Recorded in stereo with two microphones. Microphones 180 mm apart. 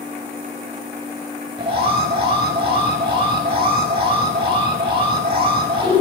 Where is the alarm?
30° right (ahead or behind), 5 m.